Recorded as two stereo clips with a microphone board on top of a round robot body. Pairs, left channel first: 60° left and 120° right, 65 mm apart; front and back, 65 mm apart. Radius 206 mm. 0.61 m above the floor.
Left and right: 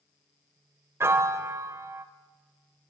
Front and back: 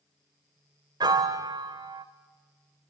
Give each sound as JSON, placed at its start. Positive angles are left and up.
{"t": 1.0, "sound": "a piano", "azimuth_deg": -170, "distance_m": 0.5}